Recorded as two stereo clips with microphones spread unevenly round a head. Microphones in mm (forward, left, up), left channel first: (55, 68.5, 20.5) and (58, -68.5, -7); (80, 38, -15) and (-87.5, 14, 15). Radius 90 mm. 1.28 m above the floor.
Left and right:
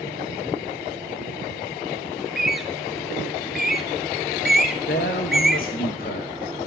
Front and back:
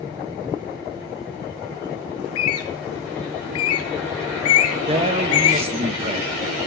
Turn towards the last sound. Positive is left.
turn(degrees=130)